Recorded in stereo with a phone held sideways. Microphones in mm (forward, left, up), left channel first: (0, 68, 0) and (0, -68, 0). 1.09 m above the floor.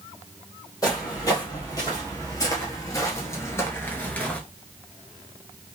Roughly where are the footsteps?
Left.